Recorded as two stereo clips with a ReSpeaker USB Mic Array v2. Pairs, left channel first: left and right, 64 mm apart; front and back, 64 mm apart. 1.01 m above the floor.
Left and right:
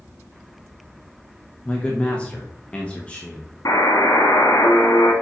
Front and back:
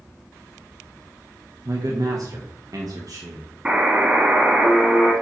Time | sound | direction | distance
1.6 | a man speaking | 160° left | 1.1 m
3.6 | a buzzer | 110° left | 1.7 m